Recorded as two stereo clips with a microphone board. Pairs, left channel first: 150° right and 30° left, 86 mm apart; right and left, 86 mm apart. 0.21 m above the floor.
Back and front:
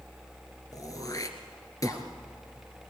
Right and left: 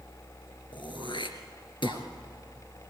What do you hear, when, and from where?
0.7 s throat clearing: 105° right, 2 m